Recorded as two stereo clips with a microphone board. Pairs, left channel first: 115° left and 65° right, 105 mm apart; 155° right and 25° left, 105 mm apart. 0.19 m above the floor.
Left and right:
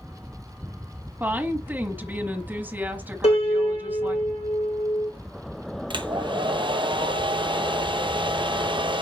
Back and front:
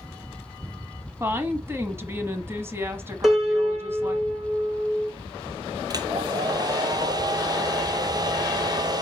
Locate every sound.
1.2 s a woman speaking: 15° right, 1.2 m
3.2 s a piano: 110° left, 2.5 m
5.9 s a hair dryer: 30° right, 0.8 m